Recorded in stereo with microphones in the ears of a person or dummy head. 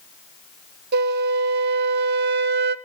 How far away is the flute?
About 0.9 m.